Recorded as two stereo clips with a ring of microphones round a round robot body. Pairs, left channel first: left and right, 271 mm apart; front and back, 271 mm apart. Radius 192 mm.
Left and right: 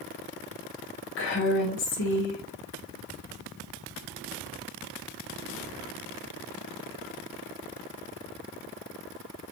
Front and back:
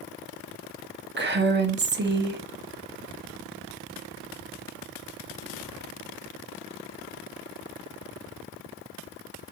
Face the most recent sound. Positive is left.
turn(degrees=135)